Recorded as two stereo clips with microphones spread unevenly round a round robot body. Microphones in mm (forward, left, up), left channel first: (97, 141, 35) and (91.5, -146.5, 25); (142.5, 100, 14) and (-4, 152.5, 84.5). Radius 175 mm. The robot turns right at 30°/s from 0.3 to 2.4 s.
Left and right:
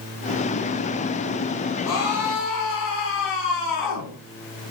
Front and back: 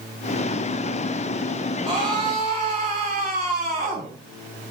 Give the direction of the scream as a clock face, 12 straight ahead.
9 o'clock.